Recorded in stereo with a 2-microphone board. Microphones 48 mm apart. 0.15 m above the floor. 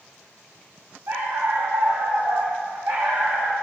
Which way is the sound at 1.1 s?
70° right (ahead or behind).